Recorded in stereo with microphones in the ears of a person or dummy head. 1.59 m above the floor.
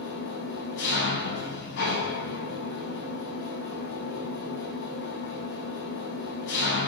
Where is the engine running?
60° left (ahead or behind), 4.5 m.